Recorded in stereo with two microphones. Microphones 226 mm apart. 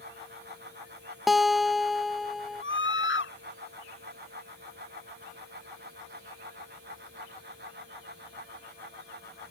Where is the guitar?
Centre (ahead or behind).